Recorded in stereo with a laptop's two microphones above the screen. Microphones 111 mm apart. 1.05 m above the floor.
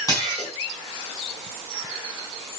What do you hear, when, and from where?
0.1 s dishes clattering: 35° left (ahead or behind), 6.5 m